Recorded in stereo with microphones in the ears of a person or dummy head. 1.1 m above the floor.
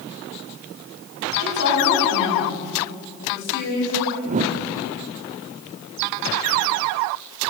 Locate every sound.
1.4 s a woman speaking: 65° left (ahead or behind), 8.5 m
4.2 s a whoosh: 35° right (ahead or behind), 1.0 m